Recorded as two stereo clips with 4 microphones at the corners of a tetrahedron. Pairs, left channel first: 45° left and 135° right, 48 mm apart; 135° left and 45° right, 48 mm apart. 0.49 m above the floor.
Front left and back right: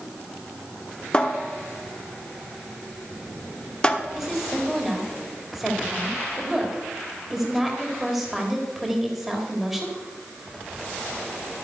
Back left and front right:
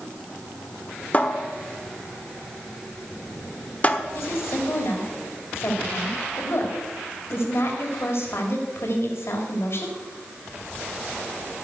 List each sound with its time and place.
1.1 s a cupboard door: 100° left, 1.0 m
4.1 s a woman speaking: 140° left, 2.5 m